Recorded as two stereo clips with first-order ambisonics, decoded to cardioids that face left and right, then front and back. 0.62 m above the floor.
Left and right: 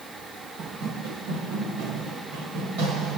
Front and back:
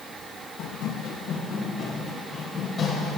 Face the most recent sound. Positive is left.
turn(degrees=-80)